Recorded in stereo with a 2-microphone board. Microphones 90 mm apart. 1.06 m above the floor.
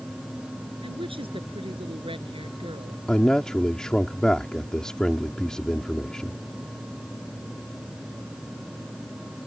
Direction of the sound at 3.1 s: 10° left (ahead or behind).